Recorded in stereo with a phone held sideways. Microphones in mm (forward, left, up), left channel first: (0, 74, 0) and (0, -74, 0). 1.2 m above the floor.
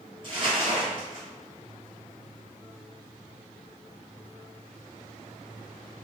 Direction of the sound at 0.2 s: 30° right (ahead or behind).